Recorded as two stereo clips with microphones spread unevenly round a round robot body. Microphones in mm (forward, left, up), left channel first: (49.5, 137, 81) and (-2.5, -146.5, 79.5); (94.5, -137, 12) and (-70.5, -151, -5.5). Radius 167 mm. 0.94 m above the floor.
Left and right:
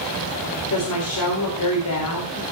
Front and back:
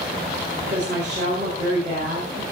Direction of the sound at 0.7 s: 120° left.